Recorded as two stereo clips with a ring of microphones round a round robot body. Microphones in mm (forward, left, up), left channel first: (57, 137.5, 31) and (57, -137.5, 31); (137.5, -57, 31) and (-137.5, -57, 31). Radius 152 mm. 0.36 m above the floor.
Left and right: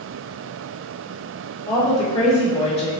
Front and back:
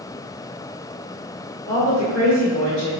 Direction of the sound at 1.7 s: 40° left.